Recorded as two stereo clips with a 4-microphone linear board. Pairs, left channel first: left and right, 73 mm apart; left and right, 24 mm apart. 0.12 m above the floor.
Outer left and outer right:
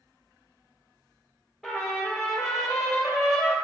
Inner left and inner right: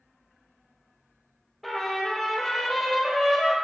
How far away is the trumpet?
About 2 m.